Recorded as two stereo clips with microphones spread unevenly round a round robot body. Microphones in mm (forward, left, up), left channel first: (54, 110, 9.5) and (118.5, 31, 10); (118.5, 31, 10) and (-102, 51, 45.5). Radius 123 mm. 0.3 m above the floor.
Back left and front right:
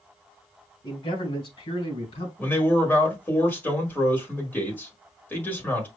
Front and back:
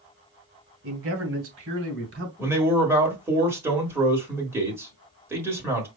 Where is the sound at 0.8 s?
165° left, 2.5 m; by 2.3 s 145° left, 3 m.